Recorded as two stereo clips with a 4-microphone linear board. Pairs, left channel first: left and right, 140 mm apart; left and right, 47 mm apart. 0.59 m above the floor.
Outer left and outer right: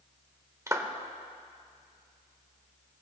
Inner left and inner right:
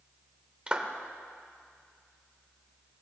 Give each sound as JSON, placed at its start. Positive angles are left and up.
{"t": 0.7, "sound": "a clap", "side_deg": -20, "distance_m": 1.2}